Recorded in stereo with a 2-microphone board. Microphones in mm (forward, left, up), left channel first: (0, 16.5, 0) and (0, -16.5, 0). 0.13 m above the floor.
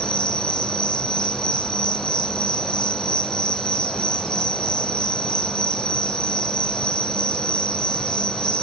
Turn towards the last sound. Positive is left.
turn(degrees=25)  # may be behind; listen again after turning